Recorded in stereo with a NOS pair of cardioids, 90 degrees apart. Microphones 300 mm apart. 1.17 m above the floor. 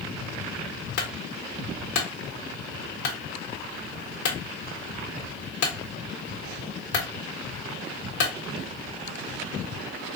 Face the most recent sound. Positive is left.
turn(degrees=65)